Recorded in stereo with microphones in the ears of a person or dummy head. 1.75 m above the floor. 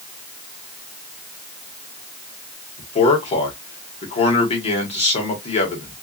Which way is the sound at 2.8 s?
30° left (ahead or behind).